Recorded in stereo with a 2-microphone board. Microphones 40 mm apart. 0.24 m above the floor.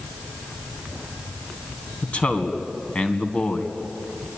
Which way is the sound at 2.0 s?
30° left (ahead or behind).